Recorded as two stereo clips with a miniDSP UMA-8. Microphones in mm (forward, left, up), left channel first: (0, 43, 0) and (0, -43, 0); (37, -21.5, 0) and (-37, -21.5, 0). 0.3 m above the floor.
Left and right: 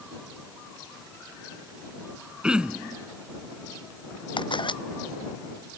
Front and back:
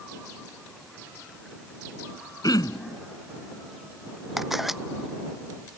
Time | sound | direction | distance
2.4 | throat clearing | 15° right | ?
4.4 | a camera shutter | 95° left | ?